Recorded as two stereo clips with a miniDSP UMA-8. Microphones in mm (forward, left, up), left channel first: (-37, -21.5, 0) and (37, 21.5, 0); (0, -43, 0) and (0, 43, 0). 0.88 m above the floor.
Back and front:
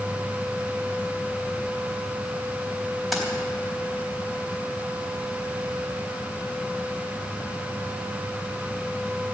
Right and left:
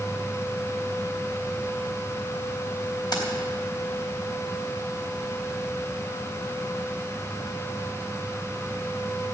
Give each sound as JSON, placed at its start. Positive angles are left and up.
{"t": 3.1, "sound": "keys jangling", "azimuth_deg": -60, "distance_m": 3.5}